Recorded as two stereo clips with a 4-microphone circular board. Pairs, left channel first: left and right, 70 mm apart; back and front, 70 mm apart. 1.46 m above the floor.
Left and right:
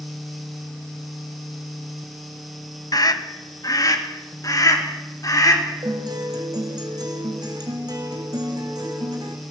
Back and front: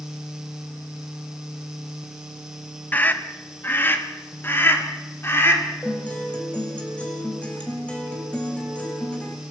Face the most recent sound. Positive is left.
turn(degrees=-110)